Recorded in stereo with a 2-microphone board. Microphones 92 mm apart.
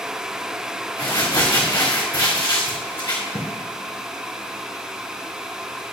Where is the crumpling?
35° left (ahead or behind), 3 m.